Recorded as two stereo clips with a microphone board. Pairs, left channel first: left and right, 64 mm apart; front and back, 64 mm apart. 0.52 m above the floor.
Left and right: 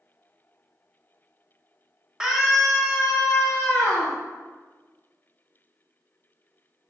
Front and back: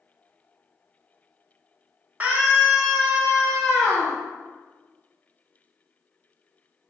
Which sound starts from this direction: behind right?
A scream, at 2.2 s.